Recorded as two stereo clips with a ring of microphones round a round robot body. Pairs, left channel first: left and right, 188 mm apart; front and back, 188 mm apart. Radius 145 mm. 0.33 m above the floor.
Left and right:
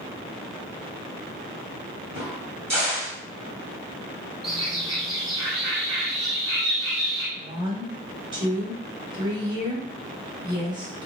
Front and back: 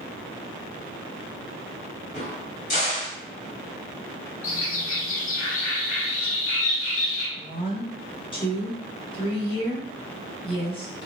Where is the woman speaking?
40° right, 1.3 m.